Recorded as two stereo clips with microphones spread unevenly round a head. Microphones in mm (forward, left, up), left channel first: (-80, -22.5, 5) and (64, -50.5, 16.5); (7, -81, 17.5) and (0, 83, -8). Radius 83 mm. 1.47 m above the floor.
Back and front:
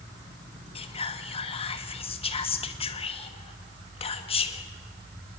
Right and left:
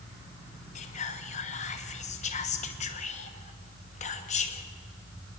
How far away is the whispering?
About 1.2 m.